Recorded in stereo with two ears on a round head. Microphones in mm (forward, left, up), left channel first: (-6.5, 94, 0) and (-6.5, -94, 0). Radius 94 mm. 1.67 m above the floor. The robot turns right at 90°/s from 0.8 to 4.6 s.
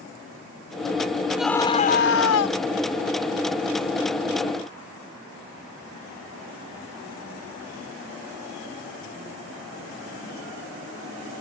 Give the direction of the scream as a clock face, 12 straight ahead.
12 o'clock.